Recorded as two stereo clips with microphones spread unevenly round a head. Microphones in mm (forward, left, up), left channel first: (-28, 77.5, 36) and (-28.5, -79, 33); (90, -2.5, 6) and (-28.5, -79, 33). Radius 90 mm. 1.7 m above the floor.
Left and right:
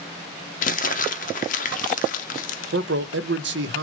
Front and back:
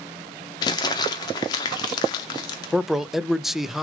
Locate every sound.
0.6 s crumpling: 105° left, 0.6 m
2.7 s a man speaking: 60° right, 0.6 m